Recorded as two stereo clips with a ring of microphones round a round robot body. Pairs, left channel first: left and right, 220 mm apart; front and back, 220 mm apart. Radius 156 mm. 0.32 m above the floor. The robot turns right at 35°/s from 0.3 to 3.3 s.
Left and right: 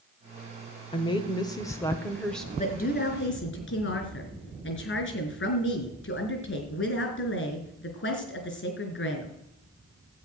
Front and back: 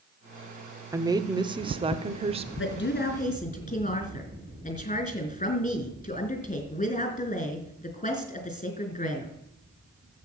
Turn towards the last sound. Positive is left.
turn(degrees=60)